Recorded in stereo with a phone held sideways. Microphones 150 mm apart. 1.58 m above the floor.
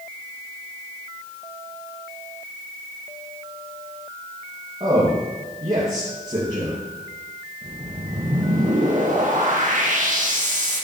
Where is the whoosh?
55° right (ahead or behind), 1.6 m.